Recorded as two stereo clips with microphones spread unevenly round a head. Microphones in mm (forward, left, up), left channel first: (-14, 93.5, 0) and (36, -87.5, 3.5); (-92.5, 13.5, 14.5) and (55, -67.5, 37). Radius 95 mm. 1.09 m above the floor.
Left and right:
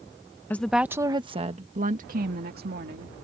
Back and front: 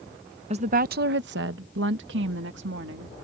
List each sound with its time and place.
0.5 s a woman speaking: 25° left; by 3.1 s 40° right